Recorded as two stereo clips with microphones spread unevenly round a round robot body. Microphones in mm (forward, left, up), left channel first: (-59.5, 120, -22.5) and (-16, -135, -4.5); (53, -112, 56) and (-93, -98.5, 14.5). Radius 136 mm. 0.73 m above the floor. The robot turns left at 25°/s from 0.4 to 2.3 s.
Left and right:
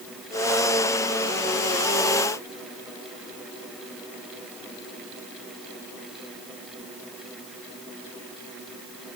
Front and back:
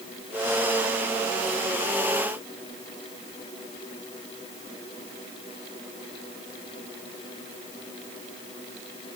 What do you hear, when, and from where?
Only background noise.